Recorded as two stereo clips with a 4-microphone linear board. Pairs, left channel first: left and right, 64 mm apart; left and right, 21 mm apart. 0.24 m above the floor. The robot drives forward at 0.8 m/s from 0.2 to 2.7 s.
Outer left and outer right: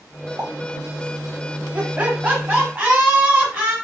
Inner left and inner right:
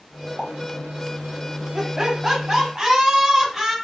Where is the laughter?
25° right (ahead or behind), 1.6 m; by 3.8 s 20° right (ahead or behind), 2.0 m.